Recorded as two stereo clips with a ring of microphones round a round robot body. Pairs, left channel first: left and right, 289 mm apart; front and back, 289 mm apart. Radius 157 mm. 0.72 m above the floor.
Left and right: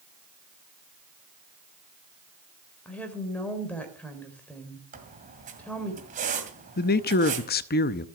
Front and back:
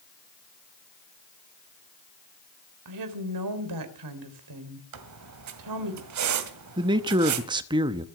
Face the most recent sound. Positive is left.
turn(degrees=115)